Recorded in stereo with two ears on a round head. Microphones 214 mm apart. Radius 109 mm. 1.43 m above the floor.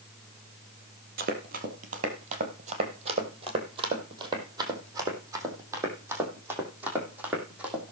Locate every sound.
1.2 s running footsteps: 45° right (ahead or behind), 2.5 m; by 7.9 s 5° right (ahead or behind), 4.5 m